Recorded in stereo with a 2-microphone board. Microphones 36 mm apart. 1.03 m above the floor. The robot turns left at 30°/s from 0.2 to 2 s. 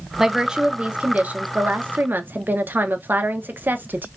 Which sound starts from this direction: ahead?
A woman speaking, at 0.2 s.